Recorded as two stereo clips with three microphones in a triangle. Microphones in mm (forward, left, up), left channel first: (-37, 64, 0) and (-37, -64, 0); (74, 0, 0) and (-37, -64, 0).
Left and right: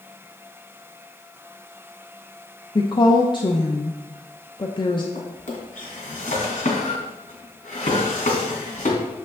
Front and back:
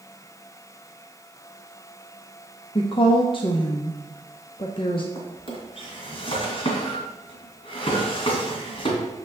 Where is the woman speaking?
55° left, 0.8 m.